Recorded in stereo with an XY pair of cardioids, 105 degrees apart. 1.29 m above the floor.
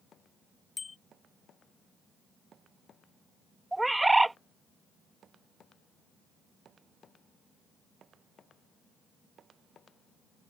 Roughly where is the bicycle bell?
Ahead left.